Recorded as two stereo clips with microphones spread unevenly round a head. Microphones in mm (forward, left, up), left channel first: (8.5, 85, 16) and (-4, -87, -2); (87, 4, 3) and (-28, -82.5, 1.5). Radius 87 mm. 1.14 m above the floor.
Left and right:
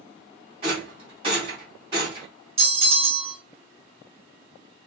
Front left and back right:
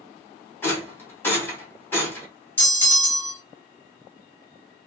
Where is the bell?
40° right, 1.8 m.